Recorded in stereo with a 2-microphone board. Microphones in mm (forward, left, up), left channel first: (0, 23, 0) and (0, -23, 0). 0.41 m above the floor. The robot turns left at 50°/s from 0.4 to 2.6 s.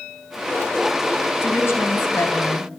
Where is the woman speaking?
115° left, 3.5 m; by 2.7 s 55° left, 3.5 m.